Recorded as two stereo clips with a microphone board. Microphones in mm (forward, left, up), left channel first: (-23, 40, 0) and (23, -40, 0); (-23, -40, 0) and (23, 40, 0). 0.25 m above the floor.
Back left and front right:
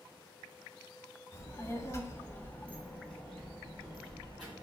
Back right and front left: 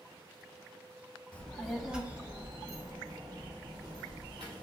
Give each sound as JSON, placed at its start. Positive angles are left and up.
{"t": 1.3, "sound": "a child speaking", "azimuth_deg": 165, "distance_m": 0.8}